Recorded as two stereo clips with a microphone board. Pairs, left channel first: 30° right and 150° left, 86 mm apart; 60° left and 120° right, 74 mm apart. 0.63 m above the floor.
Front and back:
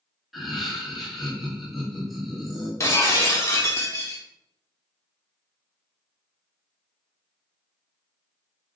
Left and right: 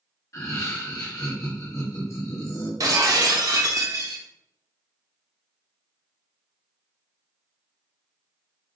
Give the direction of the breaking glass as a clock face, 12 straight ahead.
3 o'clock.